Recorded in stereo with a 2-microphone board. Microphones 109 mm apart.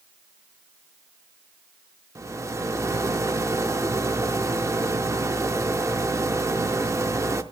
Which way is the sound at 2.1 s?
25° right (ahead or behind).